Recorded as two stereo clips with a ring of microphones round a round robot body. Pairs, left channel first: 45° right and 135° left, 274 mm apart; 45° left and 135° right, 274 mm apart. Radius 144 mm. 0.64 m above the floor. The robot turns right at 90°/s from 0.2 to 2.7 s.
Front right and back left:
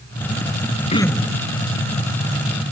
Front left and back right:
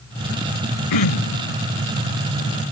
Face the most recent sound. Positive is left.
turn(degrees=-175)